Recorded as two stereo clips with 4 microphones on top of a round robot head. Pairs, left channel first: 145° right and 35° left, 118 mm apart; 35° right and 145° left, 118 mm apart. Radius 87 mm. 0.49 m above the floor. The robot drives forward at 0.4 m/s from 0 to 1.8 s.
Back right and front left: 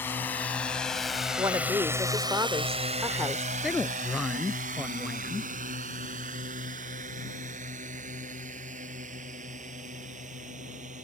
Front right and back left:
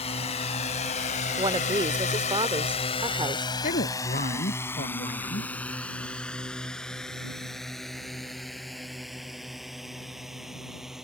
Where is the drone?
70° right; by 11.1 s 60° left.